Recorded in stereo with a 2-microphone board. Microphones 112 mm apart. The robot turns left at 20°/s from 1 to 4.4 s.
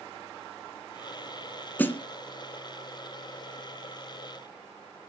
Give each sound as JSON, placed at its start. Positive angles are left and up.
{"t": 1.8, "sound": "a snare drum", "side_deg": 20, "distance_m": 1.8}